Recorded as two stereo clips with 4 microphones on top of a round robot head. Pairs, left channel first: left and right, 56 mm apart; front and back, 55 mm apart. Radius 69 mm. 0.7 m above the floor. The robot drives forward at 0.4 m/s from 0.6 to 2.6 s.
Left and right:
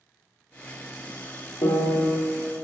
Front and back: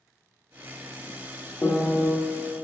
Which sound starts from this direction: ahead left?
A piano, at 1.6 s.